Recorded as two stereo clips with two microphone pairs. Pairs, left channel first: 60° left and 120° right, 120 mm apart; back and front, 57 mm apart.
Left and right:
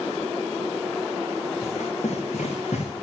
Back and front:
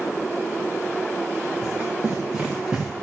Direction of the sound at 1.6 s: 60° left.